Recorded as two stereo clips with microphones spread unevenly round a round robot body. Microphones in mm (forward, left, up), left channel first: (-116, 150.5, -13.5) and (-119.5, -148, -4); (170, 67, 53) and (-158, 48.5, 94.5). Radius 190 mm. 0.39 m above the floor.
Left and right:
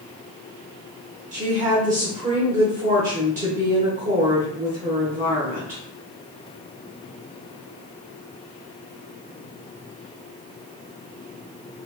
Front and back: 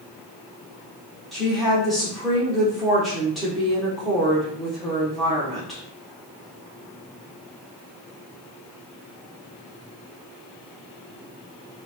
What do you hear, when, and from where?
1.3 s a woman speaking: 70° right, 0.9 m